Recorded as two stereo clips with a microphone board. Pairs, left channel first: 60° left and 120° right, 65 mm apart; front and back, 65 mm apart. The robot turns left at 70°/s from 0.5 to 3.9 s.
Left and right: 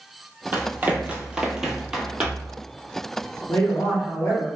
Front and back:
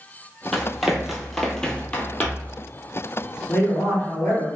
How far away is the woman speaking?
About 1.8 m.